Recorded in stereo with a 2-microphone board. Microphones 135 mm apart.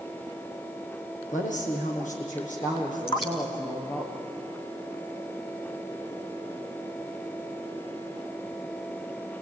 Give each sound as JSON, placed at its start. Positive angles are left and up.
{"t": 1.3, "sound": "a woman speaking", "side_deg": 80, "distance_m": 7.5}
{"t": 3.1, "sound": "dripping", "side_deg": 45, "distance_m": 3.5}